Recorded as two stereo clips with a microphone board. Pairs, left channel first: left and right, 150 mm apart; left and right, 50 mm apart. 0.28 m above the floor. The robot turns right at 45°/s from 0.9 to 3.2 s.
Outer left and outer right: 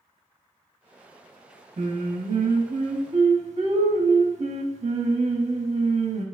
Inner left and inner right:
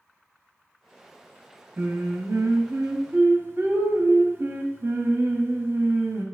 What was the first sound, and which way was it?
Singing, 120° right.